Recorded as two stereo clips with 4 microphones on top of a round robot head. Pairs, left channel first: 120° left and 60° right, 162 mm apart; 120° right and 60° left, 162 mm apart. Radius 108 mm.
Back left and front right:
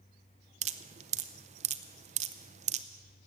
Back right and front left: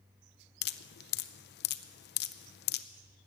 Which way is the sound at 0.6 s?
105° right.